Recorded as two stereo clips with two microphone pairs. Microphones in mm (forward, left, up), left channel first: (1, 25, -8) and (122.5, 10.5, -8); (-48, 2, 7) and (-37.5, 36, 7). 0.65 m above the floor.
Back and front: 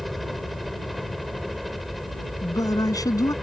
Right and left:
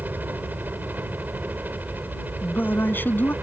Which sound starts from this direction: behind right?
A man speaking, at 2.4 s.